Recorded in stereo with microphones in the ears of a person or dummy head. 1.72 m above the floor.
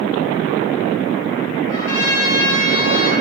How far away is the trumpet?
About 5.5 m.